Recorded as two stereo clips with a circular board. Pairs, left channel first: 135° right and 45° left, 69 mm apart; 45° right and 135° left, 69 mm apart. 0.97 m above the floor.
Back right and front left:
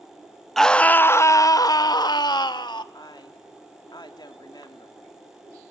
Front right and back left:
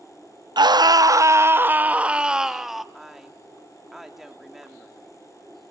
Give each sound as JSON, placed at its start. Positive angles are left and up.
{"t": 0.6, "sound": "a scream", "azimuth_deg": 140, "distance_m": 0.7}
{"t": 2.9, "sound": "a woman speaking", "azimuth_deg": -140, "distance_m": 2.5}